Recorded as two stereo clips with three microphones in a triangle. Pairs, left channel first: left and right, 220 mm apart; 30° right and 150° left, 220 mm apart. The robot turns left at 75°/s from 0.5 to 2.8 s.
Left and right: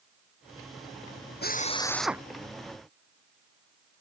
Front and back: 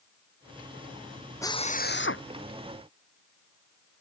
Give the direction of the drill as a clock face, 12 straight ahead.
10 o'clock.